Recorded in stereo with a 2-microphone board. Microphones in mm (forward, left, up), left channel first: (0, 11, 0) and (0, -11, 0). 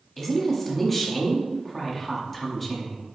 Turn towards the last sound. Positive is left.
turn(degrees=10)  # may be behind; listen again after turning